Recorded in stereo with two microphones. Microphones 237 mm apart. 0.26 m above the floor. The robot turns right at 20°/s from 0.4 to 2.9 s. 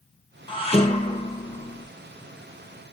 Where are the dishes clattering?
20° left (ahead or behind), 2 m; by 1.9 s 45° left (ahead or behind), 2 m.